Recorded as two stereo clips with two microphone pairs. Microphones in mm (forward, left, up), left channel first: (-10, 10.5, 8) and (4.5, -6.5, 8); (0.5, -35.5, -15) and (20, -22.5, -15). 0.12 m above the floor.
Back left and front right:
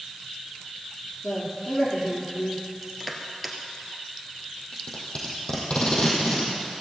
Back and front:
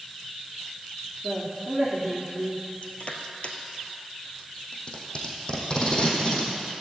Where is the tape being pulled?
165° left, 3 m.